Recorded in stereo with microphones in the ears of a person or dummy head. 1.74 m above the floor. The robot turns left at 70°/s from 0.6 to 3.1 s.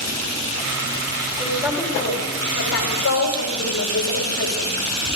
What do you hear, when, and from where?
1.4 s a woman speaking: 150° right, 4.5 m; by 4.7 s 90° left, 4.5 m